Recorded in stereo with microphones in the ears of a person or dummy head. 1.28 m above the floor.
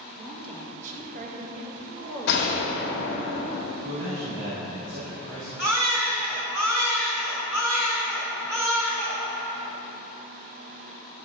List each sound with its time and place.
0.2 s a woman speaking: 25° right (ahead or behind), 1.8 m; by 3.3 s 70° right (ahead or behind), 3.5 m
2.3 s a gunshot: 65° left (ahead or behind), 1.7 m
3.8 s a man speaking: 80° right, 2.5 m
5.6 s a baby crying: 10° right (ahead or behind), 2.5 m